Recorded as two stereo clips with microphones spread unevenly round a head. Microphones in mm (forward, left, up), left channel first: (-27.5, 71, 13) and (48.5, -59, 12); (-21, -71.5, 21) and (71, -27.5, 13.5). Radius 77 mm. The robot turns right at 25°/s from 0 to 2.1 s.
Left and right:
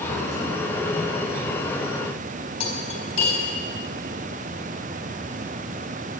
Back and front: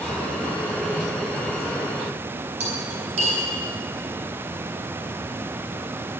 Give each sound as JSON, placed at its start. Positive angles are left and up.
{"t": 2.6, "sound": "cutlery clinking", "azimuth_deg": 65, "distance_m": 3.5}